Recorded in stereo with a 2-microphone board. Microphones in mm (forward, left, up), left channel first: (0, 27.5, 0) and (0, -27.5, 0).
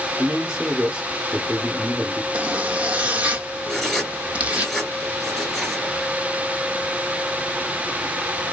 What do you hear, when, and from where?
0.2 s a man speaking: 15° right (ahead or behind), 1.6 m
2.3 s a zipper: 25° right (ahead or behind), 1.1 m
3.7 s writing: 10° left (ahead or behind), 2.5 m